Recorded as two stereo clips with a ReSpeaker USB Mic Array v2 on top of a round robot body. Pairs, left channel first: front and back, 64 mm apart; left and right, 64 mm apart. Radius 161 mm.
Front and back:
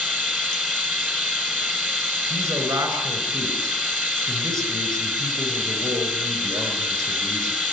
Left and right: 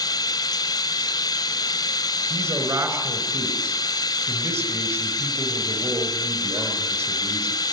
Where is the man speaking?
135° right, 6 m.